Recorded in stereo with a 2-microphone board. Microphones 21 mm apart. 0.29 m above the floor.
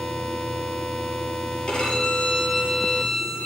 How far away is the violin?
About 6.5 m.